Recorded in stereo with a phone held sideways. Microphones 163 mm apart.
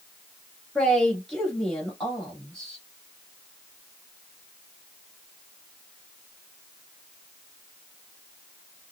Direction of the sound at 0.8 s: 5° left (ahead or behind).